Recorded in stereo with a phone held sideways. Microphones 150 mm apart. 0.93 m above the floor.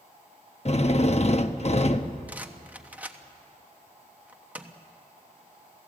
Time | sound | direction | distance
0.7 | a drill | 45° left (ahead or behind) | 0.8 m
2.3 | a rattle | 10° right (ahead or behind) | 1.1 m